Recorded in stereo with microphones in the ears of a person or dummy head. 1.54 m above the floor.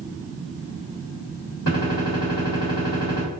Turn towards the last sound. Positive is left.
turn(degrees=45)  # may be behind; listen again after turning